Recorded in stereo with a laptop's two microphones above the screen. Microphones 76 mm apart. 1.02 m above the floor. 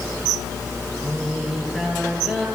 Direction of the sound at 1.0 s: 10° right (ahead or behind).